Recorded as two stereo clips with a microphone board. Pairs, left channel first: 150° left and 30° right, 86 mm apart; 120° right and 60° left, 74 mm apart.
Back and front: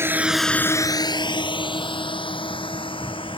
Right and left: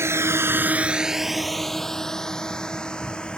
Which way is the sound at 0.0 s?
20° left.